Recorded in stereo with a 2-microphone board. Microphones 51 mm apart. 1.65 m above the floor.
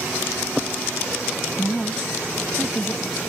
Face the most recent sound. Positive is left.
turn(degrees=0)  # may be behind; listen again after turning